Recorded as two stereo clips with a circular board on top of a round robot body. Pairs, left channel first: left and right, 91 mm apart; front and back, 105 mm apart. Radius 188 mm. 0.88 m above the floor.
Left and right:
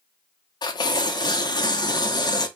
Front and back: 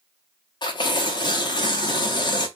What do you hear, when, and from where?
0.6 s tearing paper: 45° left, 0.8 m